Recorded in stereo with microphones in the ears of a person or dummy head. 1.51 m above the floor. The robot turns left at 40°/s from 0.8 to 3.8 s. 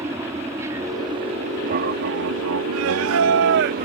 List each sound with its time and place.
0.0 s an aircraft: 15° right (ahead or behind); by 3.9 s 45° right (ahead or behind)
2.7 s singing: 80° right; by 3.9 s 125° right